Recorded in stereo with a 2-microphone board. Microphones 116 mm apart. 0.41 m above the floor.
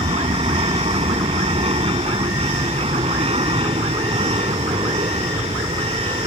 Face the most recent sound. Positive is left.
turn(degrees=-55)  # may be behind; listen again after turning